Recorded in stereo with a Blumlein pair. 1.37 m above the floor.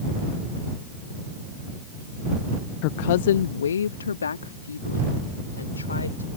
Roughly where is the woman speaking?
Ahead left.